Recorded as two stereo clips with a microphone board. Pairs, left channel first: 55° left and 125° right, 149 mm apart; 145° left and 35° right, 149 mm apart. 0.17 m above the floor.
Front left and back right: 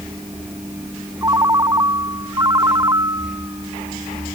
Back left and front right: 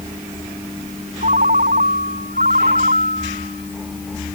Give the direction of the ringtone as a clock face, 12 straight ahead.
2 o'clock.